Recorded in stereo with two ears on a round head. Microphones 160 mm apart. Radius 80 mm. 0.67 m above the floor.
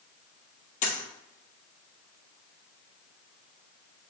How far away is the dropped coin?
About 1.1 m.